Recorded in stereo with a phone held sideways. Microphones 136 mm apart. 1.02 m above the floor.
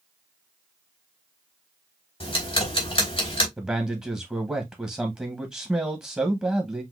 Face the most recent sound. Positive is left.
turn(degrees=-10)  # may be behind; listen again after turning